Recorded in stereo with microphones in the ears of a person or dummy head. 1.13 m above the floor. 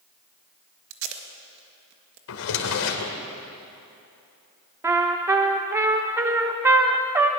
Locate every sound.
0.9 s tape being pulled: 60° right (ahead or behind), 1.8 m
2.3 s a drawer: 75° left (ahead or behind), 2 m
4.8 s a trumpet: 10° right (ahead or behind), 0.7 m